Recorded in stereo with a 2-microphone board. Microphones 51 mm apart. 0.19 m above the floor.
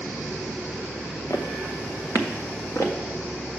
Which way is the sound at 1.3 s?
75° left (ahead or behind).